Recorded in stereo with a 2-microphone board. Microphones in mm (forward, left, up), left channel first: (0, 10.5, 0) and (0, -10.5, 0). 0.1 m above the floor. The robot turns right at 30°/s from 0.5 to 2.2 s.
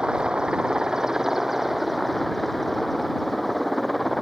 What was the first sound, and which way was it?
A helicopter, 50° right.